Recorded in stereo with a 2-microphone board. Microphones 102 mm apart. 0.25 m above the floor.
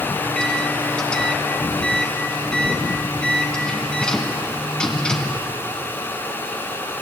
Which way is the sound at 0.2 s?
10° left (ahead or behind).